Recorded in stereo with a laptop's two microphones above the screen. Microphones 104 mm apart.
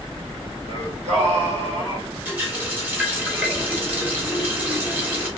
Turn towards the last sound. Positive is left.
turn(degrees=-15)  # may be behind; listen again after turning